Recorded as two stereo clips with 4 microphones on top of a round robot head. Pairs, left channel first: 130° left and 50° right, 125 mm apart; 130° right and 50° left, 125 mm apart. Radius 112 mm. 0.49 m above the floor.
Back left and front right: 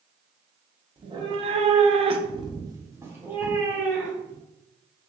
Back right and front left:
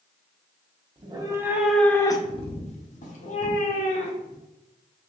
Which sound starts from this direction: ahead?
A cat meowing, at 1.0 s.